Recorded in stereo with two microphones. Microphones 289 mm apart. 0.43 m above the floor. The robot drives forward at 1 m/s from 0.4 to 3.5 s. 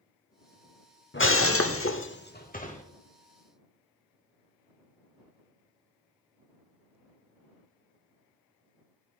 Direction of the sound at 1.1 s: 40° left (ahead or behind).